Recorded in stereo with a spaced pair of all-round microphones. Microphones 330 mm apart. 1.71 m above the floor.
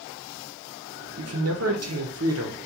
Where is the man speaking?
50° right (ahead or behind), 0.6 m.